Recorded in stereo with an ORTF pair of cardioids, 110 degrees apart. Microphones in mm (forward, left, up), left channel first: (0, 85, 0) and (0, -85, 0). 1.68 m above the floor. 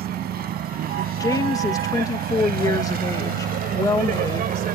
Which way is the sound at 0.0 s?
65° right.